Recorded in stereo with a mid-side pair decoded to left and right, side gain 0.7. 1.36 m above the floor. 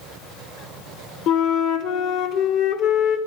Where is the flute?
60° left, 0.8 m.